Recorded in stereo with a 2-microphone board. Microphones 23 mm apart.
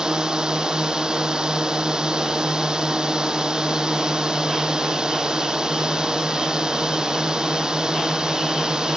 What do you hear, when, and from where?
0.0 s a drone: 30° right (ahead or behind)